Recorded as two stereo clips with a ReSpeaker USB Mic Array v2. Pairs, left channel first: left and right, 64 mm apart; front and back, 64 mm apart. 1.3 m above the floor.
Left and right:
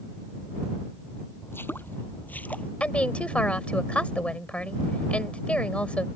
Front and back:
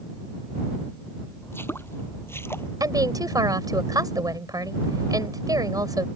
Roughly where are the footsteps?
Ahead left.